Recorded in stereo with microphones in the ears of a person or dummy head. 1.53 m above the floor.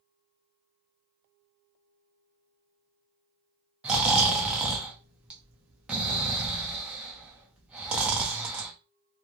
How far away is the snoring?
About 0.5 m.